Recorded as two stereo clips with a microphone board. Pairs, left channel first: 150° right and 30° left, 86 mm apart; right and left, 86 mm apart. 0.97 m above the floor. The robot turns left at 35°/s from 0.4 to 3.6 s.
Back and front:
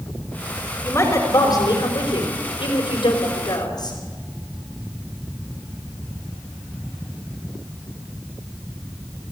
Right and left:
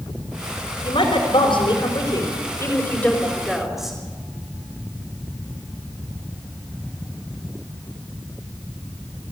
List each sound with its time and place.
0.8 s a woman speaking: 90° right, 4.5 m; by 4.0 s 175° left, 4.5 m